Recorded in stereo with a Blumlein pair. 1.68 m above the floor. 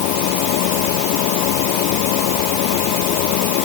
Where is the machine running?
45° left.